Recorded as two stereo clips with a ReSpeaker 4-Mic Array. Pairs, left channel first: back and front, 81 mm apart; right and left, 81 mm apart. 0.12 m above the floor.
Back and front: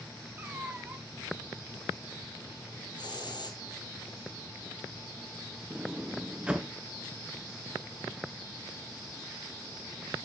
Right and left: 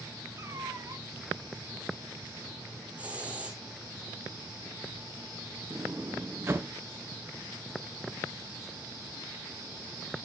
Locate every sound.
0.4 s a cat meowing: 60° left, 0.8 m
3.0 s a hiss: 165° left, 1.5 m
5.7 s a sliding door: 65° left, 0.7 m